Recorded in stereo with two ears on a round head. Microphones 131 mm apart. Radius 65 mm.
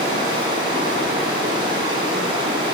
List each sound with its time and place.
0.0 s running water: 35° right (ahead or behind), 1.8 m